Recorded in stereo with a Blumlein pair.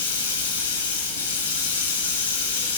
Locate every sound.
0.0 s running water: 65° left, 1.1 m